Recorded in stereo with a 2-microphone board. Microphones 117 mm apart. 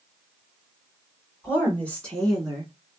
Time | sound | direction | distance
1.4 | a woman speaking | 20° left (ahead or behind) | 1.6 m